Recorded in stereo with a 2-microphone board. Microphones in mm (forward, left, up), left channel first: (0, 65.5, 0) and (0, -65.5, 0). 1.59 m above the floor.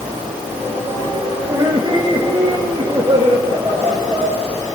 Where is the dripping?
I don't hear dripping.